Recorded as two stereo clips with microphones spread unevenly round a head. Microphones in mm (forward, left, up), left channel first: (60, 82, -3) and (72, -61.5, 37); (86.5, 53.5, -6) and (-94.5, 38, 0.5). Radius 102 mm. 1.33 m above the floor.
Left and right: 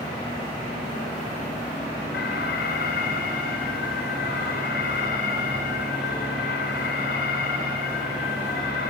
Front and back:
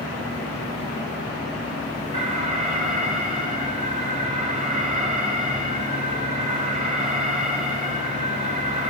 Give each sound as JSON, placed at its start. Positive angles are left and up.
{"t": 2.1, "sound": "an alarm", "azimuth_deg": 135, "distance_m": 6.5}